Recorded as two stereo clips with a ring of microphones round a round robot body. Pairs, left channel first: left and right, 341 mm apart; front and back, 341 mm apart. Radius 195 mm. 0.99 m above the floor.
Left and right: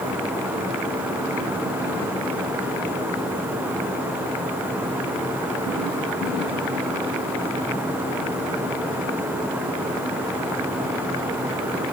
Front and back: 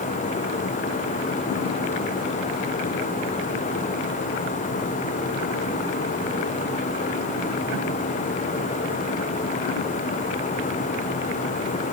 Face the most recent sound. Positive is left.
No sound to turn to.